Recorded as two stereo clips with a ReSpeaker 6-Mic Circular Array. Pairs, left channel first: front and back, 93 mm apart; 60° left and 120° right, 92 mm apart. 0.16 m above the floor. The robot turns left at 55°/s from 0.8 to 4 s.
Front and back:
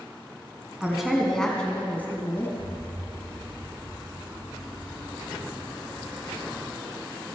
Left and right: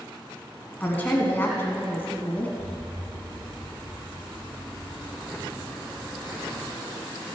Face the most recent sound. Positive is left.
turn(degrees=135)